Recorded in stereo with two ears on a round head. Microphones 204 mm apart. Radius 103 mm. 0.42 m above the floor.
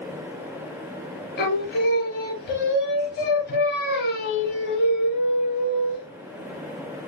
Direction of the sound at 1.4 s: 50° left (ahead or behind).